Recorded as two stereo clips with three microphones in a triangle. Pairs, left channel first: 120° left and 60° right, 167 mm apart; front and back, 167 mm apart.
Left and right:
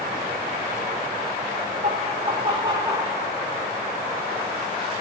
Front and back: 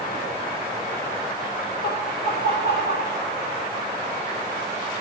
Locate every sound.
1.8 s laughter: 15° right, 1.7 m; by 3.2 s 10° left, 2.5 m